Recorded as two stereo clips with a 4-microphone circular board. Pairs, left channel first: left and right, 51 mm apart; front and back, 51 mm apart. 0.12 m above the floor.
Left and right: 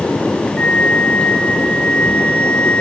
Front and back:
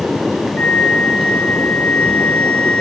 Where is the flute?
40° left, 2 m.